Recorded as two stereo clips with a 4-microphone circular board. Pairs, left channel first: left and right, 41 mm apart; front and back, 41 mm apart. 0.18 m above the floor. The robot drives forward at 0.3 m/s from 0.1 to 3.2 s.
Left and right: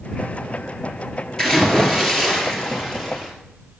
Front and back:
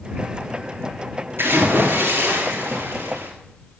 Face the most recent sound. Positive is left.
turn(degrees=165)